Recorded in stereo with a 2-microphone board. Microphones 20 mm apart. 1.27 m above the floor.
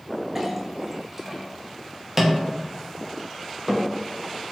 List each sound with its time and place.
0.3 s a clink: 20° right (ahead or behind), 0.6 m